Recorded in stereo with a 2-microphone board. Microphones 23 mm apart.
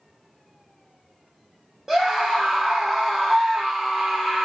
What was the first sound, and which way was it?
A scream, 10° right (ahead or behind).